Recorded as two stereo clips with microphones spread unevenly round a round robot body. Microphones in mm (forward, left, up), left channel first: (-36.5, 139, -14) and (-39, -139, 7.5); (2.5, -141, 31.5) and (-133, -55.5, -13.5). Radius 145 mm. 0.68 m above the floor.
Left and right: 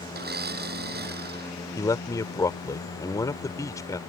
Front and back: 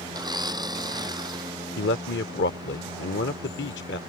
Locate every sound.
0.1 s a blender: 145° right
1.8 s a man speaking: 10° left